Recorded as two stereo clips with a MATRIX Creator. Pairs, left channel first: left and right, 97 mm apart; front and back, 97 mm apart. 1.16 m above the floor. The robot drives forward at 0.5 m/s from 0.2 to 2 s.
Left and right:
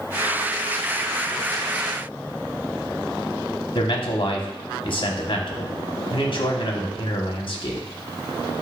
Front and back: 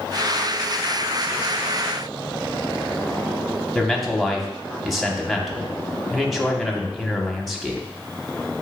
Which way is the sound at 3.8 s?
90° left.